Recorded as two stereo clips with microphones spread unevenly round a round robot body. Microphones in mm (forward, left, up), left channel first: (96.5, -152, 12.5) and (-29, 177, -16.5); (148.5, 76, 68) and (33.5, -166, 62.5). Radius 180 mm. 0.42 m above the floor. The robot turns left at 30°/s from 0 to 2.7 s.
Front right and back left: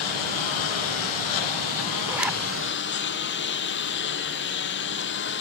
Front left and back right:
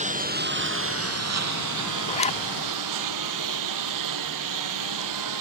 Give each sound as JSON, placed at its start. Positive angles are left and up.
{"t": 0.0, "sound": "a lawn mower", "azimuth_deg": -50}
{"t": 2.1, "sound": "a zipper", "azimuth_deg": 45}